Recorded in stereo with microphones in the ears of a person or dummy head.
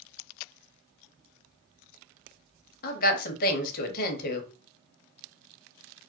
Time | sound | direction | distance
2.8 | a woman speaking | 60° left (ahead or behind) | 0.8 m